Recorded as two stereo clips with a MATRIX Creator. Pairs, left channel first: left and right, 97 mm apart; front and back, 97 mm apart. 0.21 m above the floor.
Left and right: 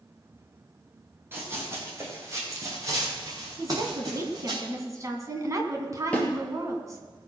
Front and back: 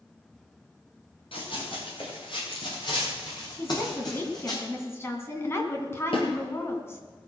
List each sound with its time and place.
1.3 s running footsteps: 25° right, 5 m; by 4.6 s 45° right, 7 m
3.6 s a woman speaking: 50° right, 2 m
6.1 s a snare drum: 10° left, 3.5 m